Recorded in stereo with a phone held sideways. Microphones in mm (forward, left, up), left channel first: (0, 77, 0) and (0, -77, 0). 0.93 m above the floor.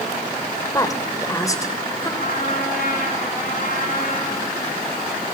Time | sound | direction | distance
0.7 | a woman speaking | 20° left (ahead or behind) | 3 m
2.2 | a trumpet | 65° left (ahead or behind) | 6.5 m